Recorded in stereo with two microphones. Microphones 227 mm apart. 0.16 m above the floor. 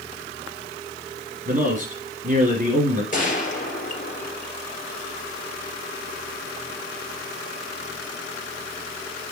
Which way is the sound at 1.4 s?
35° right (ahead or behind).